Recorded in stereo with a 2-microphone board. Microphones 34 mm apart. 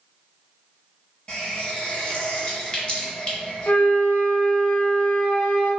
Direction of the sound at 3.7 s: 60° left (ahead or behind).